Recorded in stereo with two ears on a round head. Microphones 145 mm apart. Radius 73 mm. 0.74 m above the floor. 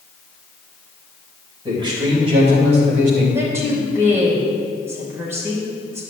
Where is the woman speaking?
15° right (ahead or behind), 3 m.